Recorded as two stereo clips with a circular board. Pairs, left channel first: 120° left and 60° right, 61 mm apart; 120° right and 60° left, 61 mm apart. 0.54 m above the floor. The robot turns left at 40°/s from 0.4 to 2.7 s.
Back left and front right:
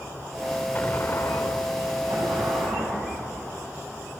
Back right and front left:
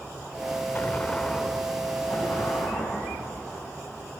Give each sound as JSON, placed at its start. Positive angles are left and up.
{"t": 0.8, "sound": "an explosion", "azimuth_deg": 180, "distance_m": 0.5}
{"t": 2.1, "sound": "an explosion", "azimuth_deg": -45, "distance_m": 7.5}